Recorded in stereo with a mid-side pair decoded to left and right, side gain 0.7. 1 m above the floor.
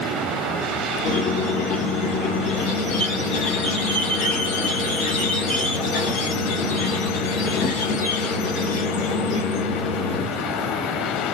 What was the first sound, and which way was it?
A squeak, 70° left.